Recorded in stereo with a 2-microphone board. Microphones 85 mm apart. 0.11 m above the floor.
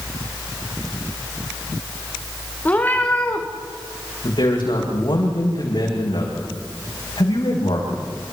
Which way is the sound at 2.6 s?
20° left (ahead or behind).